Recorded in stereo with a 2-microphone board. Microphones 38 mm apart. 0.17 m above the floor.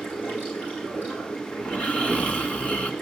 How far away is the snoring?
About 1.5 m.